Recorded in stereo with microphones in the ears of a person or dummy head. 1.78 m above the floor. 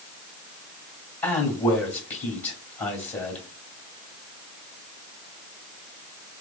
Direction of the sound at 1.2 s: 15° left (ahead or behind).